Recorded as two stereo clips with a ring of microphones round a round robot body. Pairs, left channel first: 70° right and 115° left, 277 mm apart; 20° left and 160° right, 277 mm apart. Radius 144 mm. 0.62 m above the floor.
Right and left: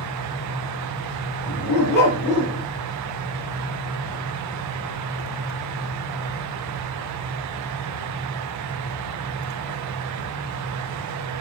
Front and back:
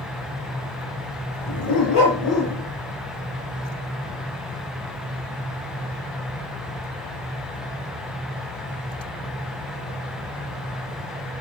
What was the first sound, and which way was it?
A dog barking, 10° right.